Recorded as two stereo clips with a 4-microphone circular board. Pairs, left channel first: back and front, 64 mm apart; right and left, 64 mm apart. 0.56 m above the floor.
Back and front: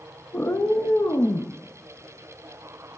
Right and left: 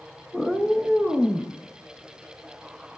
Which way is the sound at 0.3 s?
Straight behind.